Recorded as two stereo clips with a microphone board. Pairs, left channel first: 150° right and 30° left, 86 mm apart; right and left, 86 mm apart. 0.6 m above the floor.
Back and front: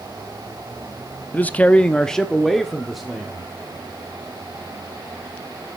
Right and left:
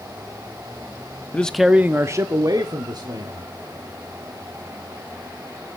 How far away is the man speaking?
About 0.7 m.